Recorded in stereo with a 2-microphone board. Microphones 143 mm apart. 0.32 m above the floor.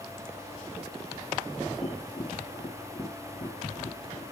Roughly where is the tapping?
Left.